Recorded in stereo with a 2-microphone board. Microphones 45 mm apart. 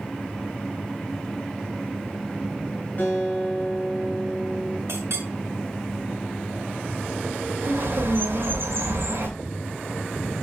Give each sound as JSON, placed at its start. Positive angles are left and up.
{"t": 3.0, "sound": "a guitar", "side_deg": 40, "distance_m": 3.5}
{"t": 4.9, "sound": "a clink", "side_deg": -75, "distance_m": 2.5}
{"t": 7.6, "sound": "a bird", "side_deg": -55, "distance_m": 2.5}